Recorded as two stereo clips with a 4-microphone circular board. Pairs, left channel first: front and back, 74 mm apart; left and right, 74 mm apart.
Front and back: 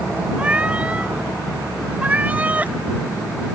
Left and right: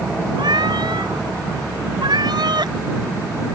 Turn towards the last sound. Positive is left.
turn(degrees=-110)